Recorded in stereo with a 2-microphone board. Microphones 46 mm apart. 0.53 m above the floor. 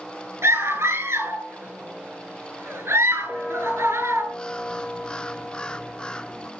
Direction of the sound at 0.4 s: 70° right (ahead or behind).